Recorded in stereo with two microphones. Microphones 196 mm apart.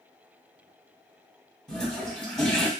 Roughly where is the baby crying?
No baby crying in this recording.